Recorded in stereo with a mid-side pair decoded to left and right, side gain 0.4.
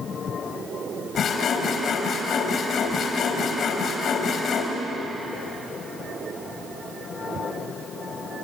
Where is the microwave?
No microwave in this recording.